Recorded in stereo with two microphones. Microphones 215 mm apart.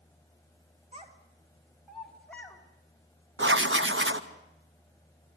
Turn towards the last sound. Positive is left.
turn(degrees=-65)  # may be behind; listen again after turning